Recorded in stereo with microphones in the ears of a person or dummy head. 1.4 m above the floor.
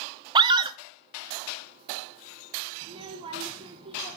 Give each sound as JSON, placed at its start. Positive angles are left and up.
{"t": 0.3, "sound": "a scream", "side_deg": -25, "distance_m": 0.7}
{"t": 2.8, "sound": "a child speaking", "side_deg": -20, "distance_m": 0.6}